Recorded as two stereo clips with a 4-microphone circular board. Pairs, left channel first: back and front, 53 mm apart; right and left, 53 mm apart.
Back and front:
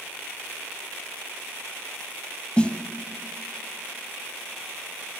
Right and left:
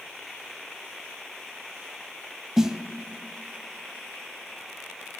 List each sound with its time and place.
2.6 s a snare drum: 155° left, 0.5 m